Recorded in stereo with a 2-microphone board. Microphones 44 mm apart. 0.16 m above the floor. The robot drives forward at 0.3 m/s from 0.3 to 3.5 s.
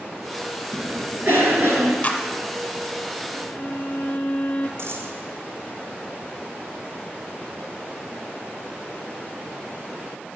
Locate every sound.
0.7 s a cough: 60° right (ahead or behind), 3 m; by 1.9 s 55° right (ahead or behind), 3 m
2.0 s a clap: 30° left (ahead or behind), 1.2 m
3.4 s a violin: 35° left (ahead or behind), 1.0 m
4.8 s a dropped coin: 70° right (ahead or behind), 1.6 m